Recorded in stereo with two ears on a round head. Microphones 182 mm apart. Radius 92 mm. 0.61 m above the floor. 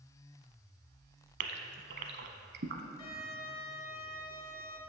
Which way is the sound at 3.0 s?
20° left (ahead or behind).